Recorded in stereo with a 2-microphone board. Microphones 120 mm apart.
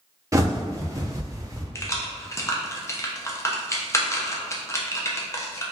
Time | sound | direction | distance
0.3 | a bird | 30° right (ahead or behind) | 0.8 m
1.8 | keys jangling | 25° left (ahead or behind) | 0.7 m